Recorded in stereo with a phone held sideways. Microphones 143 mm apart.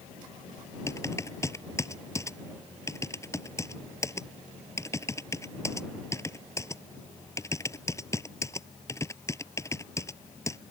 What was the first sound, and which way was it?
Typing on a keyboard, 20° left (ahead or behind).